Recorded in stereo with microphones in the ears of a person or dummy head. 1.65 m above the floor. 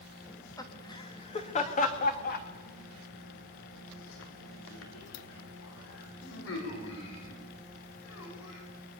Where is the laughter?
10° left (ahead or behind), 2.5 m; by 8.6 s 85° left, 6.5 m.